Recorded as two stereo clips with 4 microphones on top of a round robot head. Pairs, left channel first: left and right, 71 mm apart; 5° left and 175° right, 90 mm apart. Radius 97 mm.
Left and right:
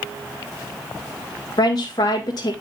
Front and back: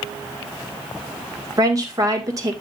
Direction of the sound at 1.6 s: 135° left.